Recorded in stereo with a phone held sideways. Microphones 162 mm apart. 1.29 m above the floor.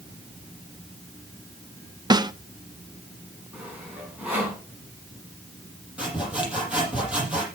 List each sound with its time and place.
2.1 s a snare drum: 25° right (ahead or behind), 0.6 m
3.5 s sawing: 10° right (ahead or behind), 4.5 m
6.0 s sawing: 10° right (ahead or behind), 6.5 m